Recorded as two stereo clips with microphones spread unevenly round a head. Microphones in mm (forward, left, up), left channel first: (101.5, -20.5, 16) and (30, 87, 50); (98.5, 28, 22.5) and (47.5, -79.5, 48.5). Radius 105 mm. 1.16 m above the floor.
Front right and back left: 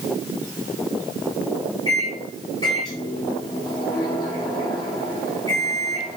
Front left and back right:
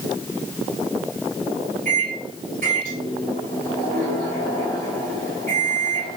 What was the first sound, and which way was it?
A microwave, 125° right.